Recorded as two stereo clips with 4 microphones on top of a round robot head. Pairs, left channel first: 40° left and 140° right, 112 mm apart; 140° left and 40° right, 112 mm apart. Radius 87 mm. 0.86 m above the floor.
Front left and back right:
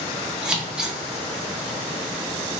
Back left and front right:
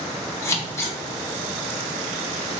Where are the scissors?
150° left, 0.9 m.